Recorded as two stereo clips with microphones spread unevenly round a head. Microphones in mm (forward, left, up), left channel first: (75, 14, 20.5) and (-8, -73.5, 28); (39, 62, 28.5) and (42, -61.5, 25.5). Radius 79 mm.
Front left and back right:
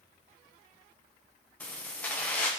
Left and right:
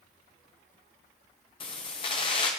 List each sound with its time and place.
1.6 s keys jangling: 125° left, 0.8 m